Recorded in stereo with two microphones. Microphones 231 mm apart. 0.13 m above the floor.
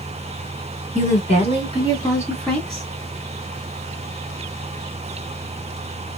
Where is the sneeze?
I don't hear a sneeze.